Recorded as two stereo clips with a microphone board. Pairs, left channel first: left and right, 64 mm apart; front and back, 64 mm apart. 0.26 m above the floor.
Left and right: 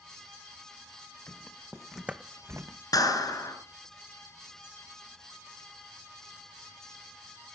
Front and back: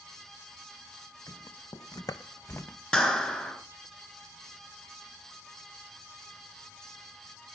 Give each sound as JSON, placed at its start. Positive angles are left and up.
{"t": 1.3, "sound": "footsteps", "azimuth_deg": 30, "distance_m": 1.6}
{"t": 2.9, "sound": "a clap", "azimuth_deg": 75, "distance_m": 3.5}